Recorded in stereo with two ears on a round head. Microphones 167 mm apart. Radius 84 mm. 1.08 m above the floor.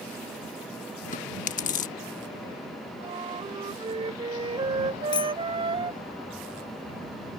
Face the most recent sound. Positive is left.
turn(degrees=25)  # may be behind; listen again after turning